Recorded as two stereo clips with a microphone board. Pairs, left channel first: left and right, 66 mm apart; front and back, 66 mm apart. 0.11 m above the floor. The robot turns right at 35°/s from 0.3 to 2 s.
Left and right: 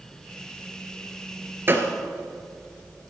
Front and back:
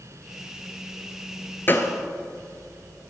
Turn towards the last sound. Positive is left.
turn(degrees=-35)